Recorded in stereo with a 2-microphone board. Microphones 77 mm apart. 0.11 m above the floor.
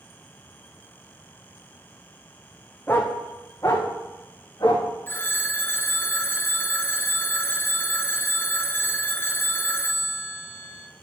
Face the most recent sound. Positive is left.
turn(degrees=30)  # may be behind; listen again after turning